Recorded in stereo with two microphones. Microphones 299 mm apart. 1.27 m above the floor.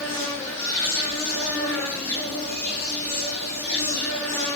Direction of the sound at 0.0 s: 10° left (ahead or behind).